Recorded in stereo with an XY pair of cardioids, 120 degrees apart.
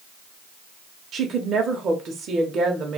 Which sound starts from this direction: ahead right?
A woman speaking, at 1.1 s.